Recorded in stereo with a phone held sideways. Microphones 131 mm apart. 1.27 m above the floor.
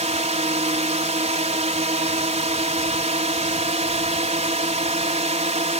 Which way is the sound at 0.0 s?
65° right (ahead or behind).